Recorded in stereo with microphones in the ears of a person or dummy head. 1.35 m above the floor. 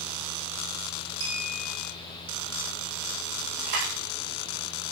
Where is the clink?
85° right, 5 m.